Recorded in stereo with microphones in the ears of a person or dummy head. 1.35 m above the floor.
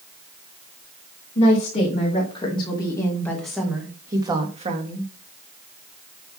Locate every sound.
1.4 s a woman speaking: 40° left (ahead or behind), 3 m; by 5.1 s 40° right (ahead or behind), 1.9 m